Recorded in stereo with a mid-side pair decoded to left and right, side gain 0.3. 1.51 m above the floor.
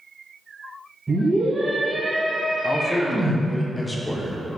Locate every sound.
1.1 s a scream: 25° right, 2.0 m
2.6 s a man speaking: 20° left, 1.2 m